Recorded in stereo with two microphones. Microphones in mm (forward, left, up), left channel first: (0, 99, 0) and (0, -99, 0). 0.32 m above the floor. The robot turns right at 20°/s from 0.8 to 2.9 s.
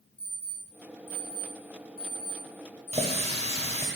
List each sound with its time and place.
0.2 s an alarm clock: 25° left (ahead or behind), 2.5 m; by 3.9 s 65° left (ahead or behind), 2.5 m
2.9 s a running tap: 30° right (ahead or behind), 0.8 m